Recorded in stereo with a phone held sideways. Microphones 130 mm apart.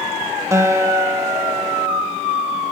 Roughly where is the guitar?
Right.